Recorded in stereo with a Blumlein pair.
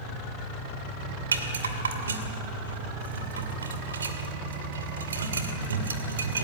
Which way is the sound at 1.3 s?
70° right.